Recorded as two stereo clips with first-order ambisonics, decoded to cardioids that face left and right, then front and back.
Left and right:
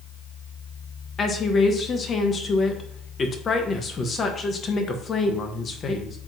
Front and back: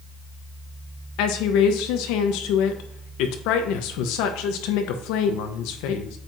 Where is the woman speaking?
20° left, 1.1 m.